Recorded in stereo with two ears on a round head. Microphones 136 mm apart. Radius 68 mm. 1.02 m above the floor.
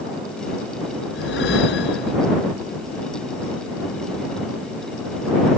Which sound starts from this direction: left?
A whoosh, at 1.1 s.